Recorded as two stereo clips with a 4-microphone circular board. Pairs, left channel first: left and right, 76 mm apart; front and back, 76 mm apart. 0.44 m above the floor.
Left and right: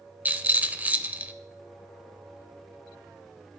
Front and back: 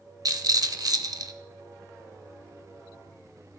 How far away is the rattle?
About 0.6 m.